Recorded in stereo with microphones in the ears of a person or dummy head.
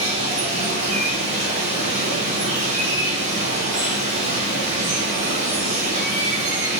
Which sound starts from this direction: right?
Running water, at 0.0 s.